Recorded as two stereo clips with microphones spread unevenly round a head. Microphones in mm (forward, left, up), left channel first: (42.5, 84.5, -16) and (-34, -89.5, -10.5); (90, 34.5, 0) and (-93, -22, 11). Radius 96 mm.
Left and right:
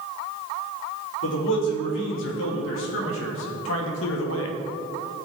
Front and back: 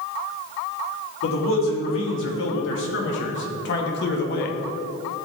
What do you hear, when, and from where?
1.2 s a man speaking: 40° left, 3 m; by 4.6 s 60° left, 1.2 m